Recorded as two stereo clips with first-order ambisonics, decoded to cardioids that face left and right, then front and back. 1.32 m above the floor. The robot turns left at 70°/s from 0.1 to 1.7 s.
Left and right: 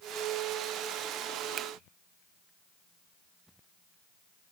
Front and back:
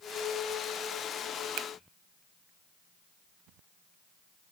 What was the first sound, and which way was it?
A finger snap, 150° right.